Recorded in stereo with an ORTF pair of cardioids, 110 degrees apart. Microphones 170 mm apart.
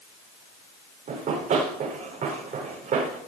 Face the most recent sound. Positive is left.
turn(degrees=-55)